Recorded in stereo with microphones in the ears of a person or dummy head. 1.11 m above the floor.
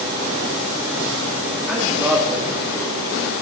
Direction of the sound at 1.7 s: Centre (ahead or behind).